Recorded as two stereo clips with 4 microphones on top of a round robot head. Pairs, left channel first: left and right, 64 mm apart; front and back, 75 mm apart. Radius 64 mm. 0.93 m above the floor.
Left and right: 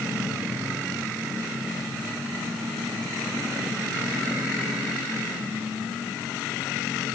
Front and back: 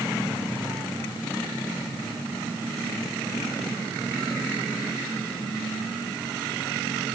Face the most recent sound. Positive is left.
No sound to turn to.